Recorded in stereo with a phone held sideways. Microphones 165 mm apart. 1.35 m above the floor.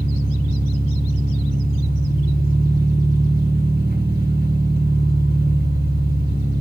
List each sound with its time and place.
0.0 s an engine running: 70° right (ahead or behind), 6.5 m